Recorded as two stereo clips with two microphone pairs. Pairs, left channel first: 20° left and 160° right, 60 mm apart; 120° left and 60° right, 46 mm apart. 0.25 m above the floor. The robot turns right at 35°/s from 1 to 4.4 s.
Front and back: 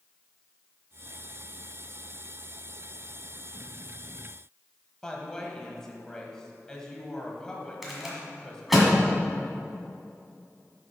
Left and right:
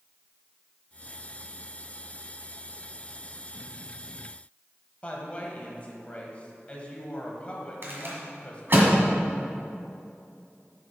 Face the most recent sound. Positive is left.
turn(degrees=-75)